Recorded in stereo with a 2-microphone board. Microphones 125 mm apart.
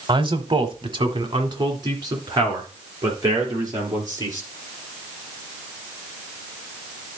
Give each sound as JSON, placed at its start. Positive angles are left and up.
{"t": 0.1, "sound": "a man speaking", "side_deg": -40, "distance_m": 1.1}